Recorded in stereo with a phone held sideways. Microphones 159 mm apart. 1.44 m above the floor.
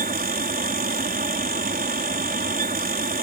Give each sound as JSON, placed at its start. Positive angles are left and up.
{"t": 0.0, "sound": "a fan", "side_deg": -65}